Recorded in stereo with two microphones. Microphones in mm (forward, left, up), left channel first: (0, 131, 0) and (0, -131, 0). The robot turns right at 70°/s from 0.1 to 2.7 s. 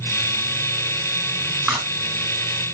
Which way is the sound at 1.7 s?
Centre (ahead or behind).